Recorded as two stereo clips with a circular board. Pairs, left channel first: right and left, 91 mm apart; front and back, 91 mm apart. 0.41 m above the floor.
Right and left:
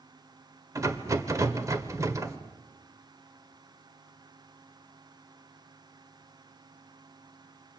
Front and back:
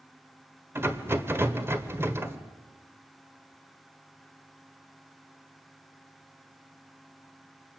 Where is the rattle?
130° left, 1.5 m.